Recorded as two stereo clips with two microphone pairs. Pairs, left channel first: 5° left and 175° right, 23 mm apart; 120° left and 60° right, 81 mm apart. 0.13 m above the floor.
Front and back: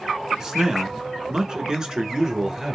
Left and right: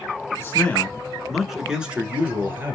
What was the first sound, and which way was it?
A man speaking, 145° left.